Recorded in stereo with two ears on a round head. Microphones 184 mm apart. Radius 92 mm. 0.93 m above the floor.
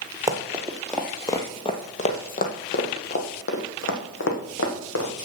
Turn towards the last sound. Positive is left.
turn(degrees=70)  # may be behind; listen again after turning